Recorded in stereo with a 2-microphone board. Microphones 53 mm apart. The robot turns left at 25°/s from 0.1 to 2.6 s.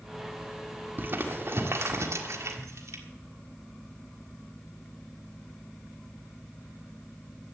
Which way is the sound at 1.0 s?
40° right (ahead or behind).